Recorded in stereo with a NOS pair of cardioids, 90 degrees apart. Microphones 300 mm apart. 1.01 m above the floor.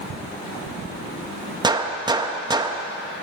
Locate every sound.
1.6 s a gunshot: 15° right, 0.7 m